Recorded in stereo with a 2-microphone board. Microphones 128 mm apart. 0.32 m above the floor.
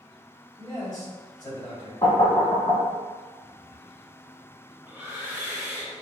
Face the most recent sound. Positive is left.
turn(degrees=-10)  # may be behind; listen again after turning